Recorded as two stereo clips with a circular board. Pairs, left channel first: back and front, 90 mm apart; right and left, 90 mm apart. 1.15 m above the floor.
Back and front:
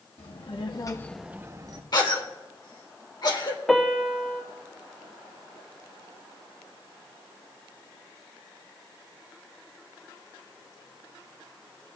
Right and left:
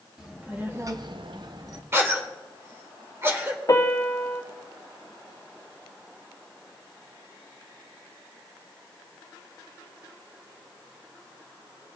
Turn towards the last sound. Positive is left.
turn(degrees=-95)